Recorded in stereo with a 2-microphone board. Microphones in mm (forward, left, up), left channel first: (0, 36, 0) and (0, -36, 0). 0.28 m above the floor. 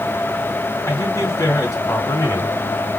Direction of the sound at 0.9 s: 50° left (ahead or behind).